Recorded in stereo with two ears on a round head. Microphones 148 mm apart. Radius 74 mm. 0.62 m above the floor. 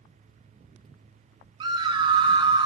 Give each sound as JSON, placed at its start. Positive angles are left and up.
{"t": 1.6, "sound": "a scream", "side_deg": -25, "distance_m": 1.4}